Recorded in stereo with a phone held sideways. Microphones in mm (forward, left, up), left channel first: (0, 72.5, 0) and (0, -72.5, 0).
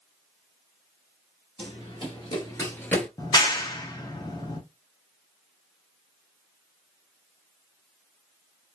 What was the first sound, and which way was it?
Running footsteps, 40° left (ahead or behind).